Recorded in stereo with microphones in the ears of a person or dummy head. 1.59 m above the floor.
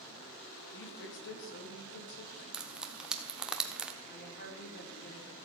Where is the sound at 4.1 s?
50° left (ahead or behind), 4.5 m.